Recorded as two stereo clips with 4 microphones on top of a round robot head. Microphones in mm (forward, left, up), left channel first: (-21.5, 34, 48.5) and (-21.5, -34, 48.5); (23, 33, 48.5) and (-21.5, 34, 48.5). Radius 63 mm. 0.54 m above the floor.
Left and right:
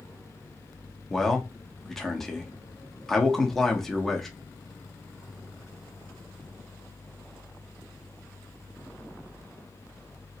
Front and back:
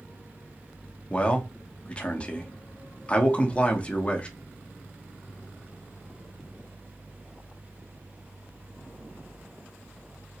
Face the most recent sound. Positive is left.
turn(degrees=10)